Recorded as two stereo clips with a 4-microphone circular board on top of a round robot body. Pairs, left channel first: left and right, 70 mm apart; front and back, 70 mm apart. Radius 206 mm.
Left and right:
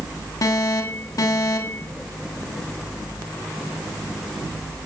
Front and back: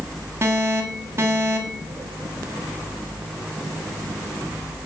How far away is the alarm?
About 6.5 m.